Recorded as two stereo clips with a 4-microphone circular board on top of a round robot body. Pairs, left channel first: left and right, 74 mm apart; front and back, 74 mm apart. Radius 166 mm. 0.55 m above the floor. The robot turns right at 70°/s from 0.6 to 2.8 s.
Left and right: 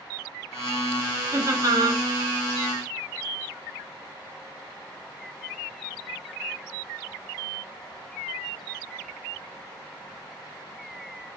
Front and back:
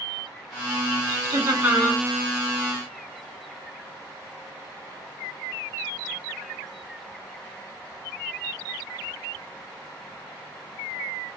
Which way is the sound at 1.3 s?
145° right.